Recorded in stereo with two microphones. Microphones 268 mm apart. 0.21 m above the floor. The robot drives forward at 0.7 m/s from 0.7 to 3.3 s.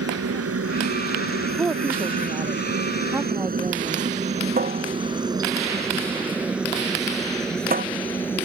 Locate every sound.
0.0 s a helicopter: 60° right (ahead or behind); by 8.5 s 10° left (ahead or behind)
1.6 s a woman speaking: 10° right (ahead or behind); by 4.1 s 5° right (ahead or behind)
4.6 s a cupboard door: 35° right (ahead or behind)